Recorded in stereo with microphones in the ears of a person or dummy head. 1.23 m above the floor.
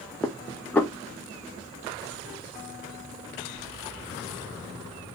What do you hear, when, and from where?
0.2 s dishes clattering: 10° left (ahead or behind), 0.7 m